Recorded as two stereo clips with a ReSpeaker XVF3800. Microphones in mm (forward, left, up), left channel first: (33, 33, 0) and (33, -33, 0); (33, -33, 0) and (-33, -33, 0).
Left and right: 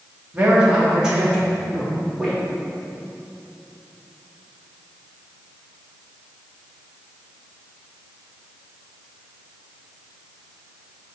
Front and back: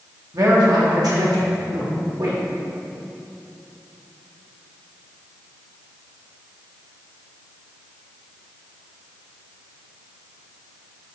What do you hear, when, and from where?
0.3 s a man speaking: 160° right, 2.0 m; by 2.4 s straight behind, 3.5 m